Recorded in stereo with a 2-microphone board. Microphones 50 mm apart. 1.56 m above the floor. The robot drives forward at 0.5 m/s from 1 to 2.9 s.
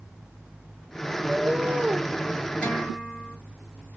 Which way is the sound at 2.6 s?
30° left (ahead or behind).